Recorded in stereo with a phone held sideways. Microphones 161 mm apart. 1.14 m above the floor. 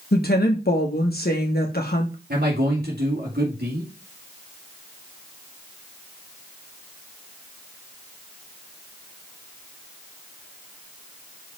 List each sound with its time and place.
0.1 s a woman speaking: 75° left (ahead or behind), 1.3 m
2.3 s a man speaking: 85° right, 2 m